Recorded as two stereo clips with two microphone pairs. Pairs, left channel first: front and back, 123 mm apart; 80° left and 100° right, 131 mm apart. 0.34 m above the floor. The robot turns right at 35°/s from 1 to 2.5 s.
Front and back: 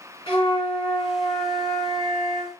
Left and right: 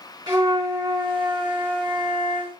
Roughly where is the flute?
Ahead right.